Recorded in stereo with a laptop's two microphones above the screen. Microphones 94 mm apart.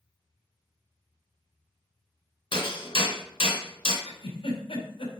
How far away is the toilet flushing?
I don't hear a toilet flushing.